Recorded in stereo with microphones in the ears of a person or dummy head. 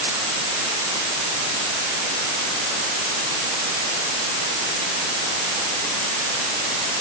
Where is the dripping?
I don't hear dripping.